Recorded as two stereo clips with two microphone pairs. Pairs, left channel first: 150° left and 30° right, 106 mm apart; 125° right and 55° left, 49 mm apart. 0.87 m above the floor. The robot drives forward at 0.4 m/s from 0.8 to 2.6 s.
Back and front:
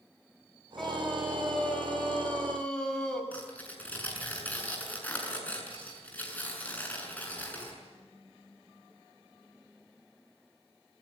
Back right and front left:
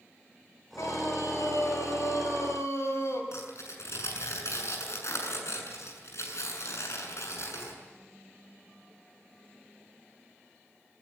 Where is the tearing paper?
135° right, 7 m.